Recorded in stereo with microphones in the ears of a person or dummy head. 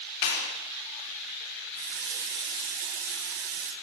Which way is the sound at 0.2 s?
65° left (ahead or behind).